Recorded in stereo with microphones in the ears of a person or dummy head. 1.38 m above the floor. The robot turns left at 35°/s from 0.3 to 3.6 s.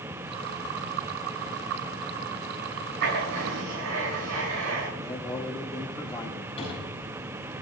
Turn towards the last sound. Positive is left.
turn(degrees=25)  # may be behind; listen again after turning